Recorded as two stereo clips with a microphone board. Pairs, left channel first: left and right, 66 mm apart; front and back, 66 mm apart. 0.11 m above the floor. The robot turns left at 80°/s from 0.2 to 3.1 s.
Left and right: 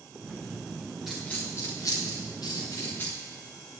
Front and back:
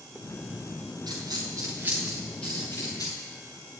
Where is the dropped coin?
175° right, 5.5 m; by 3.1 s 25° left, 5.5 m.